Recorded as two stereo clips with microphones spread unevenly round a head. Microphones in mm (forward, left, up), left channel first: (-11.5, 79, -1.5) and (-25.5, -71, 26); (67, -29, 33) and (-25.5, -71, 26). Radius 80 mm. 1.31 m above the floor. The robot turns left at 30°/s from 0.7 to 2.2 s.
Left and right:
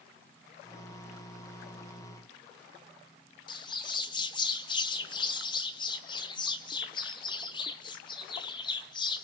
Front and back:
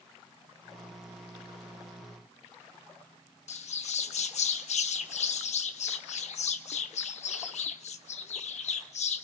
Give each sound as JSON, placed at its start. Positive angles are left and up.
{"t": 3.5, "sound": "a bird", "azimuth_deg": 20, "distance_m": 1.1}